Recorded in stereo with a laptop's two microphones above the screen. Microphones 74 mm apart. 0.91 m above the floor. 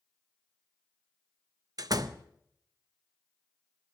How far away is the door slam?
About 0.5 m.